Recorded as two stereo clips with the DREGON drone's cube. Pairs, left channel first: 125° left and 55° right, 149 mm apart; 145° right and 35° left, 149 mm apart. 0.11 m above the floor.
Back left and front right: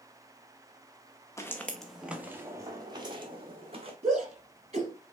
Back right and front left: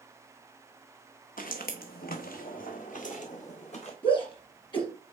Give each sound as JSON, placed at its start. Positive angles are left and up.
{"t": 1.4, "sound": "footsteps", "azimuth_deg": -165, "distance_m": 1.3}
{"t": 4.0, "sound": "a shout", "azimuth_deg": -95, "distance_m": 3.0}